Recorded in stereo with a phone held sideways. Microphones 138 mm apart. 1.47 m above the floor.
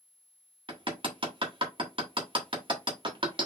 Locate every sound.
0.7 s hammering: 35° right (ahead or behind), 1.4 m